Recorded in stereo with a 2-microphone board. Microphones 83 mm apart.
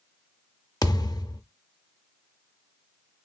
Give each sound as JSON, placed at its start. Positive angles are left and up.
{"t": 0.8, "sound": "a thud", "side_deg": 50, "distance_m": 0.6}